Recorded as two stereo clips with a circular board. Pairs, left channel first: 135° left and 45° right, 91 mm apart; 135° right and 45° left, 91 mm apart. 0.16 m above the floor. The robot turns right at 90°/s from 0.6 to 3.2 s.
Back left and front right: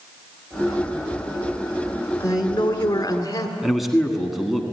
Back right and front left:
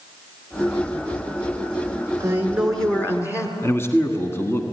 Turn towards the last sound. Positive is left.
turn(degrees=-130)